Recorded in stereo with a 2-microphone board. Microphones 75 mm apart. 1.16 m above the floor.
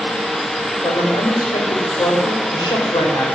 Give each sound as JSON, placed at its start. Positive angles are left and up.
{"t": 0.8, "sound": "a woman speaking", "side_deg": 70, "distance_m": 4.5}